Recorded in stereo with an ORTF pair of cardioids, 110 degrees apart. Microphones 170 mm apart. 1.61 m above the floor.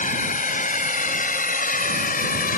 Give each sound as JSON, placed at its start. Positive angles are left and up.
{"t": 0.0, "sound": "a drone", "azimuth_deg": 45}